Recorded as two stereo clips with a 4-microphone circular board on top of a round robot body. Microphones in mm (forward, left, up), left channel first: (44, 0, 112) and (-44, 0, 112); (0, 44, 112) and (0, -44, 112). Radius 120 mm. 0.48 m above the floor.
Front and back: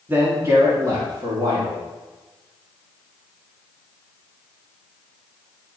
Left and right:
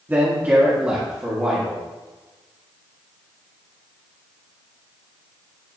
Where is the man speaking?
135° right, 1.4 m; by 1.8 s 170° right, 1.9 m.